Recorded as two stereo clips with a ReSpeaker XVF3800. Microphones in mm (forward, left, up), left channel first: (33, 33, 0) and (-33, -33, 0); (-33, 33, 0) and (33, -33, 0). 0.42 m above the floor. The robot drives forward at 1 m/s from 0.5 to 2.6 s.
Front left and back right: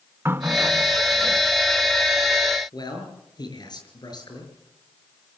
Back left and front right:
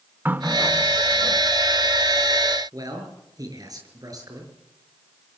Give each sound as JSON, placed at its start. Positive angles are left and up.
{"t": 0.2, "sound": "a running tap", "azimuth_deg": -95, "distance_m": 0.6}
{"t": 2.7, "sound": "a man speaking", "azimuth_deg": 5, "distance_m": 6.0}